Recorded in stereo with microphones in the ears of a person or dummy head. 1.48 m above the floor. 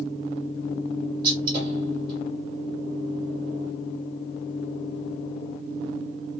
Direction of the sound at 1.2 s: 25° right (ahead or behind).